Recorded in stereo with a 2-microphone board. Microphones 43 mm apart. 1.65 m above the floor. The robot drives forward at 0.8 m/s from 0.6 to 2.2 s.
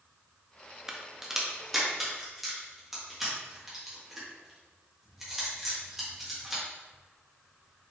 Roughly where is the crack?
Centre.